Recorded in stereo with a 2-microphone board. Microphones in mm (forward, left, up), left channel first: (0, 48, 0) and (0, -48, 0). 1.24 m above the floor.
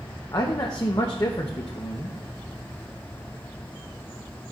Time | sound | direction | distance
0.3 | a man speaking | 45° left (ahead or behind) | 0.9 m